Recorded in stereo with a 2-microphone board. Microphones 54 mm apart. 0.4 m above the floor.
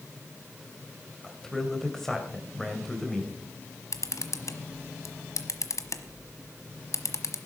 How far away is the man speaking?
About 2.5 m.